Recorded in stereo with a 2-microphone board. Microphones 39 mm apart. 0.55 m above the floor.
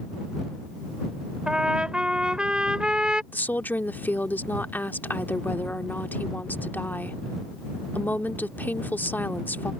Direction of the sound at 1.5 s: 20° right (ahead or behind).